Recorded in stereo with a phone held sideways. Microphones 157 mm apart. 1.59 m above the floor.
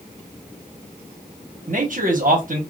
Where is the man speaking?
60° right (ahead or behind), 1.1 m.